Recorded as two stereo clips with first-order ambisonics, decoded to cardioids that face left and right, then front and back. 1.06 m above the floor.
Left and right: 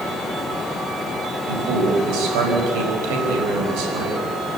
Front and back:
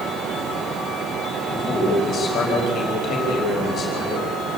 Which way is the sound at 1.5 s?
65° right.